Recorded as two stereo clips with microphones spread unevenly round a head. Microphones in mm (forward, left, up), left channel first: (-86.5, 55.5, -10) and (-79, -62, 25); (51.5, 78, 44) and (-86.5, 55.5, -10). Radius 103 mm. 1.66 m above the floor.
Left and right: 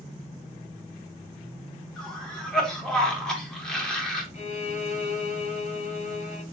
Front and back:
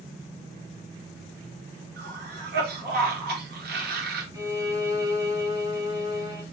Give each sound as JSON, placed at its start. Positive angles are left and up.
{"t": 2.0, "sound": "a cough", "azimuth_deg": 180, "distance_m": 2.0}
{"t": 4.3, "sound": "a violin", "azimuth_deg": 120, "distance_m": 1.7}